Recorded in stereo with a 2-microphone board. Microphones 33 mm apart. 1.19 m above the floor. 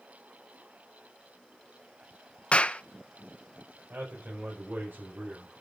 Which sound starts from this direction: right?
A man speaking, at 3.9 s.